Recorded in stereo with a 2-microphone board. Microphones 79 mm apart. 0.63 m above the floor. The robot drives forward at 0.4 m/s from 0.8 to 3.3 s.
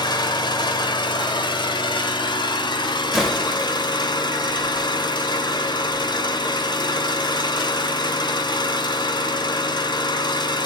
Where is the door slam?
Centre (ahead or behind), 1.7 m.